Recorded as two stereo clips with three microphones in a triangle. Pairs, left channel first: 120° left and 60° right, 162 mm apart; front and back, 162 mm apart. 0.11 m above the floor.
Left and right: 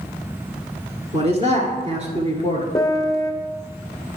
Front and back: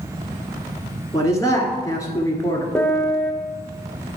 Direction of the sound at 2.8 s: 70° left.